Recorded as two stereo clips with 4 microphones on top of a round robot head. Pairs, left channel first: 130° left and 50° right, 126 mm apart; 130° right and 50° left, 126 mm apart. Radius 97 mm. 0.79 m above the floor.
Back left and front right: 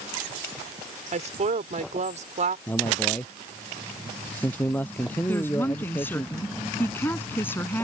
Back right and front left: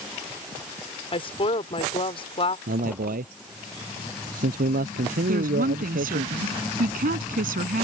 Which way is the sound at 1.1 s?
80° right.